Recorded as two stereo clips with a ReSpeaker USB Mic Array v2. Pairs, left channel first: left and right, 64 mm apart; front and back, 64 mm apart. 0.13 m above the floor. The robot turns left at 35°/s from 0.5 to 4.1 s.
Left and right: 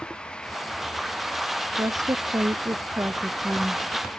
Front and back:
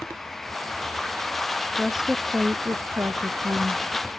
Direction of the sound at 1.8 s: 90° right.